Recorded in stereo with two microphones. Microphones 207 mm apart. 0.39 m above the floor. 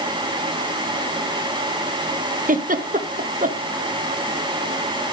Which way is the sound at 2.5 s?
40° right (ahead or behind).